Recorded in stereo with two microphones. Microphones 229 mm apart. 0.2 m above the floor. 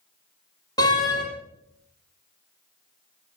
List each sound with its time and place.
0.8 s a door slam: 15° left (ahead or behind), 5 m